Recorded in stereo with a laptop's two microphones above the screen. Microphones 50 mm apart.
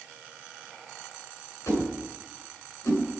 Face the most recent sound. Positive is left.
turn(degrees=85)